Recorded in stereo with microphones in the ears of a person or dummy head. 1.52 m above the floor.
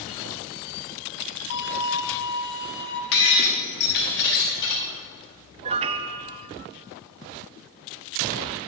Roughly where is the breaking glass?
Left.